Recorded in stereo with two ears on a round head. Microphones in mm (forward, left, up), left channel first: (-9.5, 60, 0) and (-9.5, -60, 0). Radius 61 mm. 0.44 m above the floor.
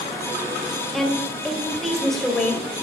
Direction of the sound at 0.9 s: 5° left (ahead or behind).